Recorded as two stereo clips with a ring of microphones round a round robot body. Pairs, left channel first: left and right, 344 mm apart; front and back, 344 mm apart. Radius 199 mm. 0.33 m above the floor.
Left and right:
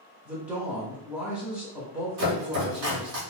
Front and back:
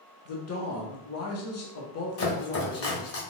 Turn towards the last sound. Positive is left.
turn(degrees=-45)